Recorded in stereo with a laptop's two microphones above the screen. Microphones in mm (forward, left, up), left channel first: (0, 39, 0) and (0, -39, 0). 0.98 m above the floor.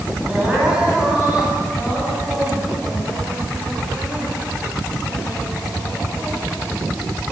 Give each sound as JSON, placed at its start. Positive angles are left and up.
{"t": 0.3, "sound": "crying", "side_deg": -15, "distance_m": 7.5}